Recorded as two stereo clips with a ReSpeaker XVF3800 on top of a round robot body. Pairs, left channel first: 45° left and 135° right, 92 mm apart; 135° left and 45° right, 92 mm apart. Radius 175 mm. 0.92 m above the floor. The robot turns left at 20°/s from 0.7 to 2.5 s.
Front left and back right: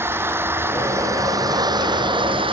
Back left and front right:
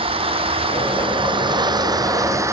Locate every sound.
0.0 s an engine running: 70° right; by 2.5 s 105° right